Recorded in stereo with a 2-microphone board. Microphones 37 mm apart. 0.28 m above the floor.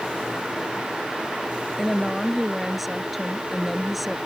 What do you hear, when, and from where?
1.8 s a woman speaking: 5° right (ahead or behind)